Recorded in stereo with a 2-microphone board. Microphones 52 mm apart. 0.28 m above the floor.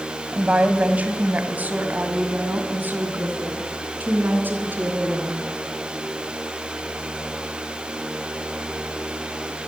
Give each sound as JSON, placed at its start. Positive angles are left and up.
{"t": 0.3, "sound": "a woman speaking", "side_deg": -25, "distance_m": 2.0}